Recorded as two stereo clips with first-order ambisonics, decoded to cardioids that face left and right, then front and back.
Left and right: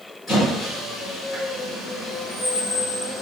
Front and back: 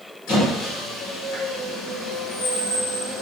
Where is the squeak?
20° left, 1.7 m.